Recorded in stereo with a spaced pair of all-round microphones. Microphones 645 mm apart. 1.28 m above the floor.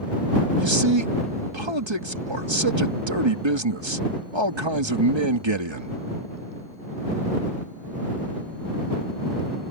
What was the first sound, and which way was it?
A man speaking, 45° right (ahead or behind).